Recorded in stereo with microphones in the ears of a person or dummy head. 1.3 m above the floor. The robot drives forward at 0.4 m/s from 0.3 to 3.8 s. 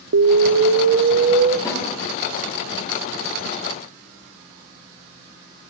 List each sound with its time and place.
0.1 s an explosion: 80° right, 0.6 m; by 1.6 s 45° right (ahead or behind), 0.8 m
1.6 s a snare drum: 20° left (ahead or behind), 4.5 m